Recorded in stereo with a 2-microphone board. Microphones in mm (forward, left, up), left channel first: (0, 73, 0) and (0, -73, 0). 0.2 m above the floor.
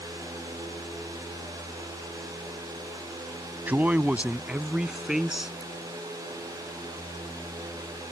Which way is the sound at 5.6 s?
10° left (ahead or behind).